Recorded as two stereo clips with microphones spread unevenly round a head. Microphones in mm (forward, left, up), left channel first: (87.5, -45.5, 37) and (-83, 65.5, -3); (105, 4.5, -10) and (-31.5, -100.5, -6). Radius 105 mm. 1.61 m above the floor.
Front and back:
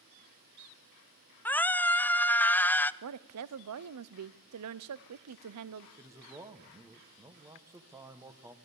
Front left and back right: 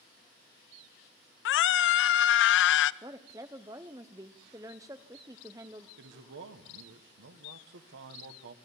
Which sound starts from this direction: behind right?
A man speaking, at 6.0 s.